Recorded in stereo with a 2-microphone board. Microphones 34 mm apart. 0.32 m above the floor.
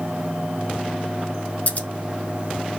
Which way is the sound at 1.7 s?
50° left (ahead or behind).